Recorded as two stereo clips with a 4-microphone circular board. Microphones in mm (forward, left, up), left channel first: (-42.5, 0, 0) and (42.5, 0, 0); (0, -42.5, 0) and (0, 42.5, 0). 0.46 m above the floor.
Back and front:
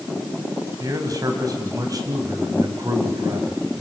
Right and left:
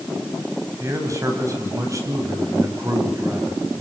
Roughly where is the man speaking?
Ahead left.